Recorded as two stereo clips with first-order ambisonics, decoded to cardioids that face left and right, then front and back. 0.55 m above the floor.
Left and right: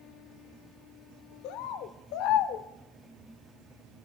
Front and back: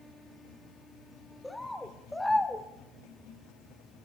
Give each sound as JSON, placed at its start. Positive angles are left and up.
{"t": 1.4, "sound": "a bird", "azimuth_deg": 85, "distance_m": 0.9}